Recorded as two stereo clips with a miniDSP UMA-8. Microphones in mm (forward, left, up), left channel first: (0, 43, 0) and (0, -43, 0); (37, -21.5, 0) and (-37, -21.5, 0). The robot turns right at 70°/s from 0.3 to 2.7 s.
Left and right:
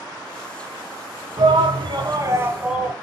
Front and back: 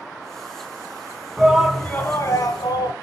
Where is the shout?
105° right, 3 m; by 2.9 s 10° right, 3 m.